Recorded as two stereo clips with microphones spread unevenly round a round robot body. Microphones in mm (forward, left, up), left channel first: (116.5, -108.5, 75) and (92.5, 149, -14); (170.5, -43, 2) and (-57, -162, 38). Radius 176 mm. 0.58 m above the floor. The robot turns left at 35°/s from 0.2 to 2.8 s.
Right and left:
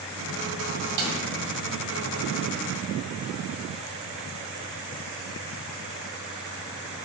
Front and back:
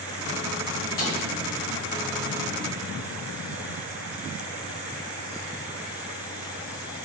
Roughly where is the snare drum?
Left.